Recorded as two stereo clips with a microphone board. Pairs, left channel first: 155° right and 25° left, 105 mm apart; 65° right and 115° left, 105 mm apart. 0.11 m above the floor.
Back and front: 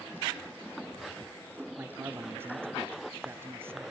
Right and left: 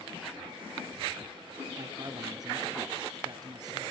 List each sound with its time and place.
1.8 s a man speaking: 85° left, 1.6 m